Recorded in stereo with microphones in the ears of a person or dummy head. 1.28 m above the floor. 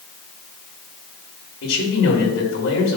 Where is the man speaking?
65° left (ahead or behind), 3.5 m.